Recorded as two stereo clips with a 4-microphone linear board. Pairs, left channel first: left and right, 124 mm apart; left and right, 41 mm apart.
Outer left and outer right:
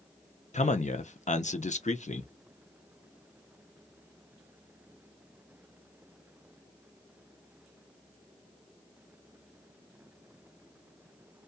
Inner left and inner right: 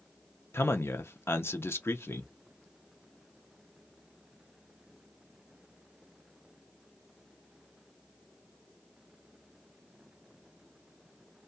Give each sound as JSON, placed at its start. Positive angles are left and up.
{"t": 0.5, "sound": "a man speaking", "side_deg": 75, "distance_m": 0.5}